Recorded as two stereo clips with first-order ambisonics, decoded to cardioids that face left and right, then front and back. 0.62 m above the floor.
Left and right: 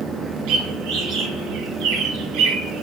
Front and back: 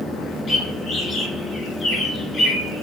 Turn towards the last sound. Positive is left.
turn(degrees=-65)